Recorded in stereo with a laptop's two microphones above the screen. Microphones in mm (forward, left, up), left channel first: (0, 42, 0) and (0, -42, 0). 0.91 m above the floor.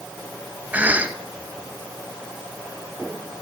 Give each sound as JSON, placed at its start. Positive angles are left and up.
{"t": 0.7, "sound": "a cough", "side_deg": -20, "distance_m": 0.8}